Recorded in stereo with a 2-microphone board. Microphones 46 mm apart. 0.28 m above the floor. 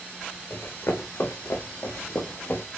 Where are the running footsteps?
75° left (ahead or behind), 1.6 m; by 2.6 s 60° left (ahead or behind), 1.5 m.